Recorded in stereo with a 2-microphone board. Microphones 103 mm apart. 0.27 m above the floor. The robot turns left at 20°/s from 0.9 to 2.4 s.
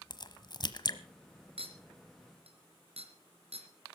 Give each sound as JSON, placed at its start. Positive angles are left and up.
{"t": 0.1, "sound": "a crack", "side_deg": 45, "distance_m": 1.1}
{"t": 1.6, "sound": "a clink", "side_deg": -65, "distance_m": 3.0}